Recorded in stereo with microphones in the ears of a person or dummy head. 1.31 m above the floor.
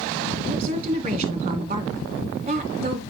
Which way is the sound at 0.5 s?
35° right (ahead or behind).